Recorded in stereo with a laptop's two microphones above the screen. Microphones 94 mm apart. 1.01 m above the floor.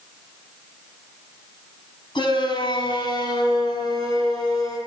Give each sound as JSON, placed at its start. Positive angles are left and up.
{"t": 2.1, "sound": "a shout", "side_deg": 60, "distance_m": 7.5}